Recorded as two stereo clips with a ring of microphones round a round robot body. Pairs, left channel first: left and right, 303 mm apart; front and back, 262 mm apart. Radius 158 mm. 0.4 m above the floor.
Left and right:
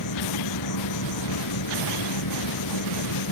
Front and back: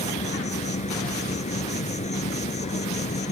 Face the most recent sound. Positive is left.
turn(degrees=65)